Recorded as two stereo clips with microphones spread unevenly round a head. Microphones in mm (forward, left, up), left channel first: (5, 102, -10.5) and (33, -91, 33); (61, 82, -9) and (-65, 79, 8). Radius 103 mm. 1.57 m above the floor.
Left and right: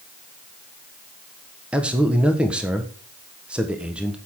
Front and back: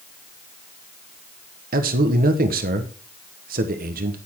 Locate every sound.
1.7 s a man speaking: 165° right, 1.3 m